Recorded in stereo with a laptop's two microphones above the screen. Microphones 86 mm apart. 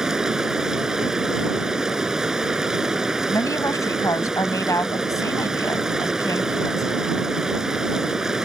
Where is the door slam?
I don't hear a door slam.